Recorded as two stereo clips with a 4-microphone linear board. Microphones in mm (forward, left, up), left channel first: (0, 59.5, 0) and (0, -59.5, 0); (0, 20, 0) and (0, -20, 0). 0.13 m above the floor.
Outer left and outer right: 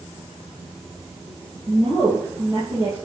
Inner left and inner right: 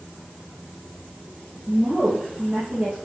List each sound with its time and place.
1.7 s a woman speaking: 25° right (ahead or behind), 2.5 m